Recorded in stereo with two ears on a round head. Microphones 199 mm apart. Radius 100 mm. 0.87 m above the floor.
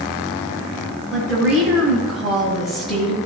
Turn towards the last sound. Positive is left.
turn(degrees=0)  # may be behind; listen again after turning